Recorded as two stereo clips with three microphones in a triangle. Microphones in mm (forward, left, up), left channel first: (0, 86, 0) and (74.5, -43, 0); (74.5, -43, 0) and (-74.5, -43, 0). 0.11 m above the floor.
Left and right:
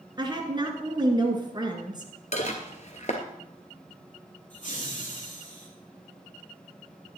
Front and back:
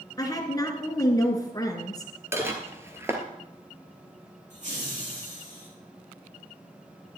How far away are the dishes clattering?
About 1.4 m.